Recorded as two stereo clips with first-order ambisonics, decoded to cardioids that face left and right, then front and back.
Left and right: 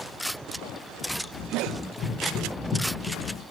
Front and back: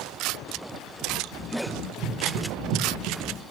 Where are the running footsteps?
135° left, 2.5 m; by 3.4 s 165° left, 2.5 m.